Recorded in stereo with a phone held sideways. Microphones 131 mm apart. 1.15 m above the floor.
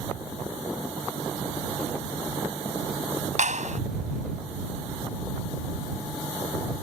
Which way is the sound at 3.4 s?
75° right (ahead or behind).